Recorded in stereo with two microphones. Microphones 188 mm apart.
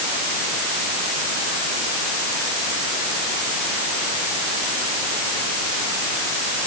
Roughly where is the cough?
No cough in this recording.